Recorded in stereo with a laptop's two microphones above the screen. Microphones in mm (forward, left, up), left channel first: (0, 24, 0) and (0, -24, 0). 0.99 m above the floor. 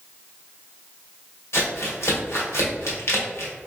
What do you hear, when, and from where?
1.5 s crumpling: 75° left (ahead or behind), 1.7 m